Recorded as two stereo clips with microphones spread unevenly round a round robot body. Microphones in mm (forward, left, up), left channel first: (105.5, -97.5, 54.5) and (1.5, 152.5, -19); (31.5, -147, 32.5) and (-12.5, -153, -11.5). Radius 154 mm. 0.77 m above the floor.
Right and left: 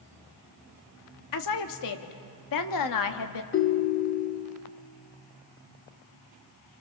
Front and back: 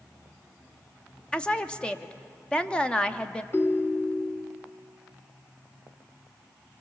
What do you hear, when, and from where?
1.3 s a woman speaking: 90° right, 1.5 m
3.5 s a ringtone: 25° right, 1.0 m